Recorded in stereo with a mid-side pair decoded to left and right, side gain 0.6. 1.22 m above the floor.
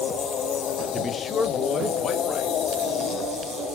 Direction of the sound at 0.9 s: 30° left.